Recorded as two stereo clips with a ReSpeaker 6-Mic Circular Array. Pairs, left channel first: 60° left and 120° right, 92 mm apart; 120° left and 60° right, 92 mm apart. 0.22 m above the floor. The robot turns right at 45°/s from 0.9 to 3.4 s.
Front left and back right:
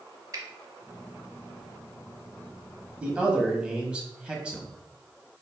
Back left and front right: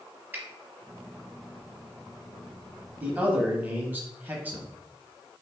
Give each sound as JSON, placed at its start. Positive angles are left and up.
{"t": 0.3, "sound": "a finger snap", "azimuth_deg": -115, "distance_m": 1.0}
{"t": 3.0, "sound": "a man speaking", "azimuth_deg": -75, "distance_m": 1.0}